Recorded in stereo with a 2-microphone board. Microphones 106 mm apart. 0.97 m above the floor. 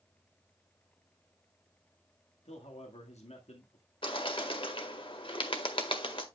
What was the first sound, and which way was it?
A man speaking, 80° left.